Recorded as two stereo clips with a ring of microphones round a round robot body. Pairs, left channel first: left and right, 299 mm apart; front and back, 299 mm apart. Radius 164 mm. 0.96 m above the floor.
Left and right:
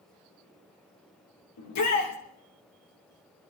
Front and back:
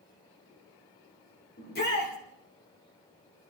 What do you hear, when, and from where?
1.6 s a shout: 60° left, 3.5 m